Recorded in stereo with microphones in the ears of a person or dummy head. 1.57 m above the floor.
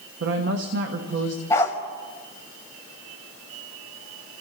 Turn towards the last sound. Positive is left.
turn(degrees=15)  # may be behind; listen again after turning